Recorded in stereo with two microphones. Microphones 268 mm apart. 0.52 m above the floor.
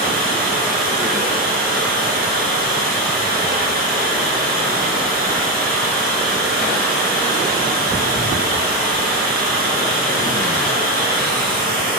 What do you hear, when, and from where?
0.0 s running water: 35° right (ahead or behind), 1.0 m